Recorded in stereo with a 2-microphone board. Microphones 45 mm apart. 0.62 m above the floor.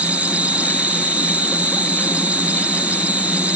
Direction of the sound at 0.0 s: 35° right (ahead or behind).